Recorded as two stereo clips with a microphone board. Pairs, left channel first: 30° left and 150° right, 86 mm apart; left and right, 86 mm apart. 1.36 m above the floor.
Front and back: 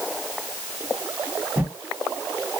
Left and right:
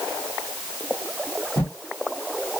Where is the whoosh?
140° left, 1.8 m.